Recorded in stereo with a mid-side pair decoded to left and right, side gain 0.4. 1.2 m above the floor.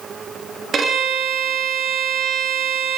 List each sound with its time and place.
0.7 s a violin: 55° right, 2 m